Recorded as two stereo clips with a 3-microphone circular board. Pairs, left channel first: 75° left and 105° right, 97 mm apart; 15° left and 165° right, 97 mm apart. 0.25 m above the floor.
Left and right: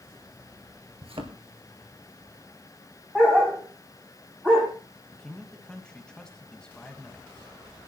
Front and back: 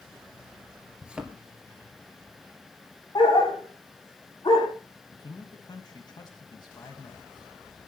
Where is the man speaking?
5° right, 1.5 m.